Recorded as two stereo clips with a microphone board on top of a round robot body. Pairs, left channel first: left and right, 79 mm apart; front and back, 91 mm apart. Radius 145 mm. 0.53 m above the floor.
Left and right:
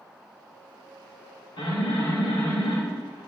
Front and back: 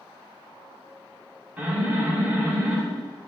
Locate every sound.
1.6 s an alarm: 105° left, 6 m